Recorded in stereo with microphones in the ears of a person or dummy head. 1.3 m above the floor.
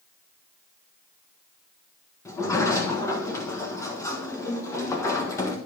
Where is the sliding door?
15° left (ahead or behind), 1.2 m.